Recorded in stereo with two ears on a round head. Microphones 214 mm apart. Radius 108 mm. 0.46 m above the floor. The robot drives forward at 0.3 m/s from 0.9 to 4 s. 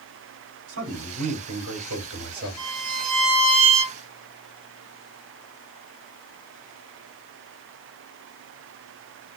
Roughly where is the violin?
Centre.